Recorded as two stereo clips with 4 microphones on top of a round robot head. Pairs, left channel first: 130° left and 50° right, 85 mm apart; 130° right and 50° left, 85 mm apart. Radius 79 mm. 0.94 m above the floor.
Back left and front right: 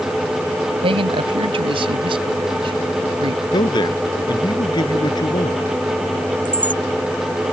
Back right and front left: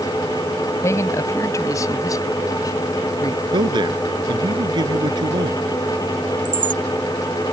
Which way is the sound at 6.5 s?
20° left.